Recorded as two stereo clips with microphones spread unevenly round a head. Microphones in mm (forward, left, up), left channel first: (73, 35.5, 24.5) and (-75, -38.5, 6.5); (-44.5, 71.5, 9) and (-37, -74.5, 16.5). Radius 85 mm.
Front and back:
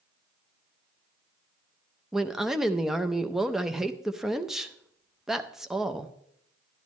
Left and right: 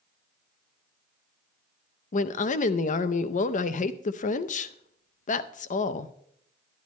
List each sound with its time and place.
2.1 s a woman speaking: 120° left, 0.6 m